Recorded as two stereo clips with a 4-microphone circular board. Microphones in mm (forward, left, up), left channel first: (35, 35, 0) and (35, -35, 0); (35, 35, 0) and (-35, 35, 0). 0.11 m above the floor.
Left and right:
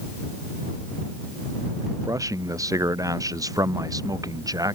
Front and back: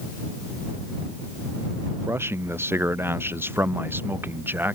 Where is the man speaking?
125° right; by 4.8 s 120° right.